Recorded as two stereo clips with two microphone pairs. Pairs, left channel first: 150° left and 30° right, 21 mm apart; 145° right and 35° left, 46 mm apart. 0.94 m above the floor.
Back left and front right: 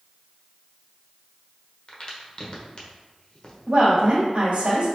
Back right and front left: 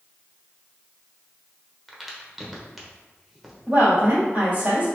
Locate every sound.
1.9 s a crack: 120° left, 0.9 m
3.7 s a woman speaking: 30° right, 1.7 m